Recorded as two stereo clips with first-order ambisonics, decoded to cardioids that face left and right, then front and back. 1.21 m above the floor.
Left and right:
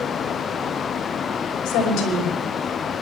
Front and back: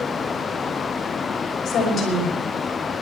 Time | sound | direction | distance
1.6 | a woman speaking | 60° left | 5 m